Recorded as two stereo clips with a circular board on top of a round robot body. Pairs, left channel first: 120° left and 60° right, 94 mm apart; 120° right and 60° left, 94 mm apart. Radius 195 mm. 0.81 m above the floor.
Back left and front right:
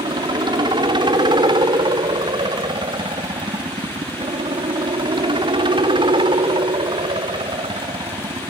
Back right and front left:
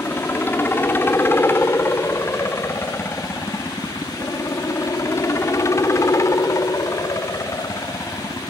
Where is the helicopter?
55° right; by 8.5 s 70° right.